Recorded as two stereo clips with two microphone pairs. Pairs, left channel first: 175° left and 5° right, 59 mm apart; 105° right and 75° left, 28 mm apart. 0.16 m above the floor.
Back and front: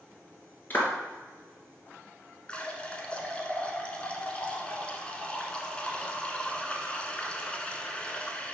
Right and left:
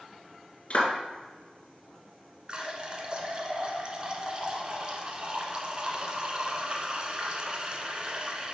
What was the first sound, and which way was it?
A clap, 135° right.